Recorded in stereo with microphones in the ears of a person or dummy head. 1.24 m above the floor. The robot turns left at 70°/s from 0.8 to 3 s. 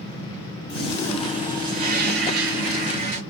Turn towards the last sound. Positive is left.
turn(degrees=-130)